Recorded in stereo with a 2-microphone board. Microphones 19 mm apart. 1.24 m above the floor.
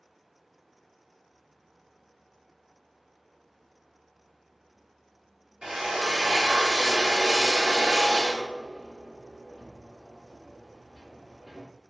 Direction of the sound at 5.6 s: 40° right (ahead or behind).